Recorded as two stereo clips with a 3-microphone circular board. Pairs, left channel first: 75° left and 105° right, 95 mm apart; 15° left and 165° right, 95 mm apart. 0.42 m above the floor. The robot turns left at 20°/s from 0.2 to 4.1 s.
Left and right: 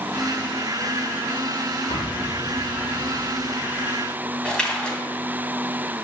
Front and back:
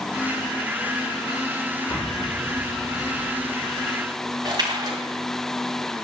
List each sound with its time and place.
1.9 s an explosion: 70° left, 5.5 m; by 3.9 s 35° left, 5.5 m
4.5 s a splash: 155° left, 2.5 m